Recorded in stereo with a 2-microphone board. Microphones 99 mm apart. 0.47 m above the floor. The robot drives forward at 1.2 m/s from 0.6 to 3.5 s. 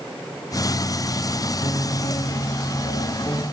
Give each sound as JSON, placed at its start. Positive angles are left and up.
{"t": 1.6, "sound": "a piano", "side_deg": 50, "distance_m": 2.0}